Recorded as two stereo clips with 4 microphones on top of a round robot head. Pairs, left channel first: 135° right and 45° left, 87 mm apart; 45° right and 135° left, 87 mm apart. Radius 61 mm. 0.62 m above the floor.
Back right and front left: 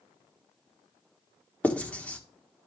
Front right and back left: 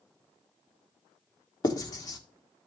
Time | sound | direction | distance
1.6 | writing | 65° right | 1.6 m